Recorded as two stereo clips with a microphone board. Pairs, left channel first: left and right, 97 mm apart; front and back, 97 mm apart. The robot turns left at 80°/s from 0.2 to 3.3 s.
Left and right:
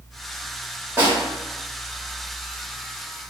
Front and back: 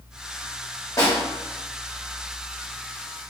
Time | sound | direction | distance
1.0 | a snare drum | 35° right | 1.3 m